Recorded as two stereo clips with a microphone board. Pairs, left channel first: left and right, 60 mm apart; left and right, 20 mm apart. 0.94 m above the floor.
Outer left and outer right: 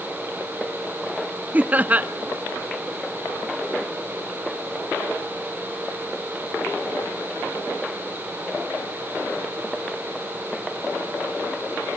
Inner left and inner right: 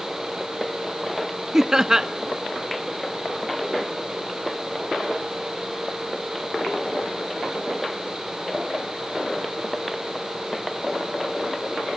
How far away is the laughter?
About 0.7 m.